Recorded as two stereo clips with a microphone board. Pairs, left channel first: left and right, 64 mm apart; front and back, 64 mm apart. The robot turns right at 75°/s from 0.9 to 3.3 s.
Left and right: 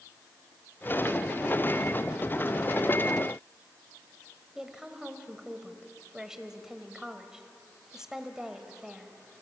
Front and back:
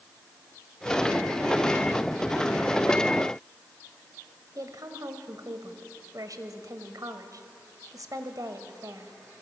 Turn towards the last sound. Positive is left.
turn(degrees=-170)